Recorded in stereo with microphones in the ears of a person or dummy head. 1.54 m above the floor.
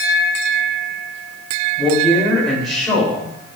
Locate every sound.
1.8 s a man speaking: centre (ahead or behind), 5.5 m